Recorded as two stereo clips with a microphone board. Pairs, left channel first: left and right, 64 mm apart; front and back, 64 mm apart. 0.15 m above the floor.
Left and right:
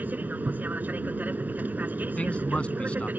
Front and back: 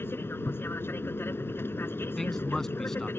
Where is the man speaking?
70° left.